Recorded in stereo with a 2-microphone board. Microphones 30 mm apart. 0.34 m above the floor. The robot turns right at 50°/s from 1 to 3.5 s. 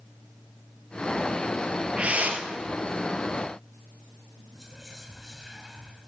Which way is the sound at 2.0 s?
40° right (ahead or behind).